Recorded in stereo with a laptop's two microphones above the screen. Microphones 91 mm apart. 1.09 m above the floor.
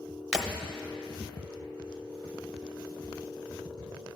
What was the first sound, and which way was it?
Breaking glass, 5° right (ahead or behind).